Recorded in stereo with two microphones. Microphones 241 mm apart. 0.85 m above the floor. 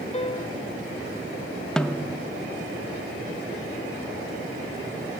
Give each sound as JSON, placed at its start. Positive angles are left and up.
{"t": 0.1, "sound": "a piano", "side_deg": 25, "distance_m": 0.6}
{"t": 1.8, "sound": "a snare drum", "side_deg": 5, "distance_m": 0.7}